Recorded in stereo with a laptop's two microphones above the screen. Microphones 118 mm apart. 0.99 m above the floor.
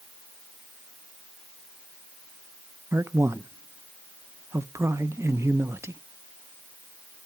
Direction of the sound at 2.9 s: 25° right (ahead or behind).